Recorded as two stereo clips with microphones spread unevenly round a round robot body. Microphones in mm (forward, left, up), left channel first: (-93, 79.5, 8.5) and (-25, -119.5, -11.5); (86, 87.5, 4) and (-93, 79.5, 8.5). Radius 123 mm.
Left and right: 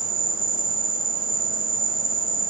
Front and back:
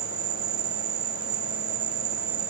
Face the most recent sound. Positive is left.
turn(degrees=-90)